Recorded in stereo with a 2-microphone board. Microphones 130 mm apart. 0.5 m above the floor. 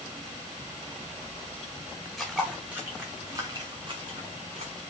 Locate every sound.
2.2 s footsteps: centre (ahead or behind), 3 m; by 4.7 s 55° right (ahead or behind), 3.5 m